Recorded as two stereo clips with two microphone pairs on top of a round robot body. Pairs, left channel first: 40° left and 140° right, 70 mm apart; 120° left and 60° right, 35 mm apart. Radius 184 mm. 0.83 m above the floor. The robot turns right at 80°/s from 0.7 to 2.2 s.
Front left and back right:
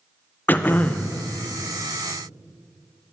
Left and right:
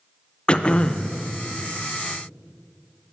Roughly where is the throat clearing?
Left.